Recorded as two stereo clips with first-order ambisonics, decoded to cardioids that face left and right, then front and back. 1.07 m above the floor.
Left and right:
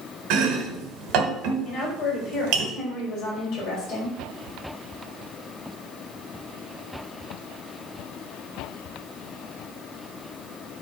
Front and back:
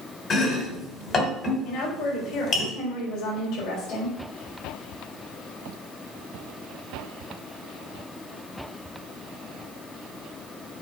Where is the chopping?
60° right, 2 m.